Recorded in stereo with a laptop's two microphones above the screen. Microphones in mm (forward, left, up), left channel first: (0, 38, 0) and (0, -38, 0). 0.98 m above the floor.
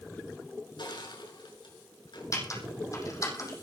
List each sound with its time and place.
0.8 s crushing: 80° left, 7.5 m
2.3 s typing on a keyboard: 45° left (ahead or behind), 6.5 m